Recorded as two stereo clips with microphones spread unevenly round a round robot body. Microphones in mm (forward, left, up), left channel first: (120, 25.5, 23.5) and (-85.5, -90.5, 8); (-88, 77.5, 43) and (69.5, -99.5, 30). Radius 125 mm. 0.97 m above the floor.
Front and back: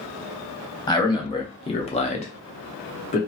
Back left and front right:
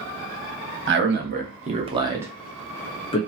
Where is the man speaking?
40° right, 1.2 m; by 3.2 s 80° left, 0.9 m.